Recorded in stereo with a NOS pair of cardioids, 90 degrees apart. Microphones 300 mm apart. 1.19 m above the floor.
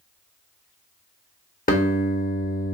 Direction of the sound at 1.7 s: 30° left.